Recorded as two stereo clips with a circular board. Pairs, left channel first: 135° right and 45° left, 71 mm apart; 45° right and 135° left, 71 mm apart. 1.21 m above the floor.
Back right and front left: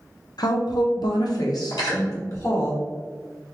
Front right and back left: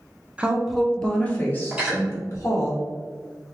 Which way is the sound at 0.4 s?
155° right.